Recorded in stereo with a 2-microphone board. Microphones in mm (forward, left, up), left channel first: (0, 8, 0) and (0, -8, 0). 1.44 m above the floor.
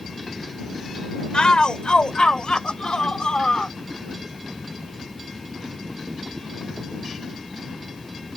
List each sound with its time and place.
1.3 s a shout: 75° left (ahead or behind); by 3.7 s 85° left